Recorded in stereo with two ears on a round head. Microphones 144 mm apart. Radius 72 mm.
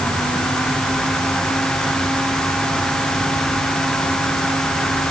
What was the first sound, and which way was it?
Only background noise.